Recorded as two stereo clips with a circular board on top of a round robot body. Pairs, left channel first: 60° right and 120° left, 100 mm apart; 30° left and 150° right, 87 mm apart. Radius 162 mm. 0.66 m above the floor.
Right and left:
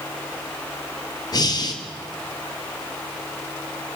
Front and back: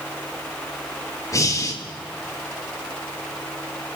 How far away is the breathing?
About 3 m.